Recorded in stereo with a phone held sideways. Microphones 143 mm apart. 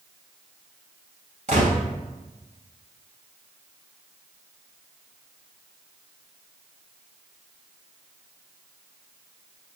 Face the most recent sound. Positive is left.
turn(degrees=-60)  # may be behind; listen again after turning